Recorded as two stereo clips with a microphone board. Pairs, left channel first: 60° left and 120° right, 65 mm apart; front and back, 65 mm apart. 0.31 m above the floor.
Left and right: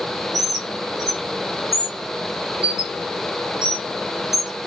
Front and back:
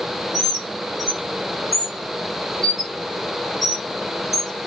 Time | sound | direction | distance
0.3 | a bird | 90° left | 1.6 m